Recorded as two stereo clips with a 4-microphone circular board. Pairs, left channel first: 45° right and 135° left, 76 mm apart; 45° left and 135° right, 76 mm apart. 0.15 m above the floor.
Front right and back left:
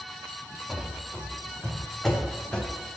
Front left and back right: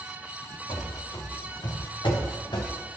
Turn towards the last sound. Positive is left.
turn(degrees=35)